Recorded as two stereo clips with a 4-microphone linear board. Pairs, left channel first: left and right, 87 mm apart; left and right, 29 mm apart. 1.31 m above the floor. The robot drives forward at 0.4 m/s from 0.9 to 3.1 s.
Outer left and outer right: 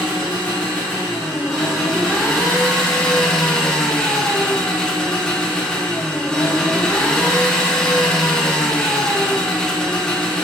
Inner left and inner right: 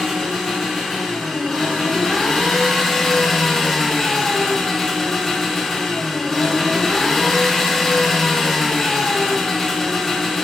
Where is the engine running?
5° left (ahead or behind), 1.4 m; by 10.4 s 10° left (ahead or behind), 0.5 m.